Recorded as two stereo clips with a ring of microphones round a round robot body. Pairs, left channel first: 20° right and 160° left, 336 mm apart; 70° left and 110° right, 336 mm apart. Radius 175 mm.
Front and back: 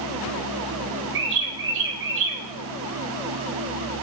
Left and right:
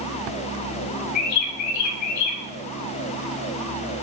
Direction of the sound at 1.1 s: 105° left.